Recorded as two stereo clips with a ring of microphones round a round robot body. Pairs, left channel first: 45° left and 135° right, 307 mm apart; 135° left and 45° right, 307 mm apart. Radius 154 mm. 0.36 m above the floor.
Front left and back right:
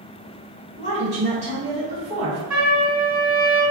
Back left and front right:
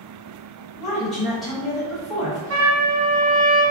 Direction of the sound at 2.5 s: 50° right.